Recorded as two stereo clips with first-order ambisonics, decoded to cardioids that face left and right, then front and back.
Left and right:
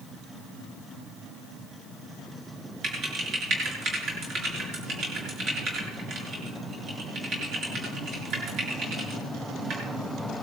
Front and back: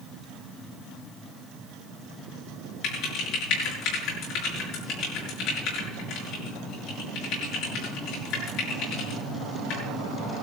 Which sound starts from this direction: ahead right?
Typing on a keyboard, at 2.8 s.